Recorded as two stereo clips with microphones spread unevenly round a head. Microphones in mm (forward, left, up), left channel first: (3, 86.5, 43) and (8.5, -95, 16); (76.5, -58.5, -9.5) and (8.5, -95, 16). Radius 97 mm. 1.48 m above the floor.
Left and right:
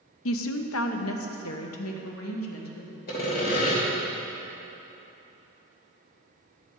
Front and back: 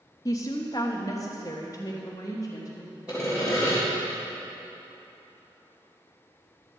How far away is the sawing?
About 3 m.